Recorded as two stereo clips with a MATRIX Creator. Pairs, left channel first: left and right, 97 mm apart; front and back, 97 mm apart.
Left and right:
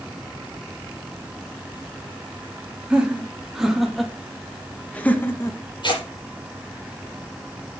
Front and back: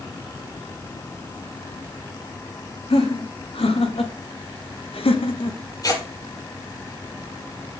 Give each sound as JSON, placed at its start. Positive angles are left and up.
{"t": 2.9, "sound": "laughter", "azimuth_deg": -10, "distance_m": 3.0}
{"t": 5.8, "sound": "tearing paper", "azimuth_deg": 50, "distance_m": 6.5}